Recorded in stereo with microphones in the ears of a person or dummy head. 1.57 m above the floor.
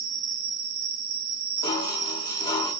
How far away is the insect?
About 2.5 m.